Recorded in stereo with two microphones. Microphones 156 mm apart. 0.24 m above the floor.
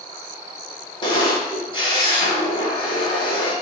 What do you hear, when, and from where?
1.0 s a camera shutter: 30° left (ahead or behind), 0.9 m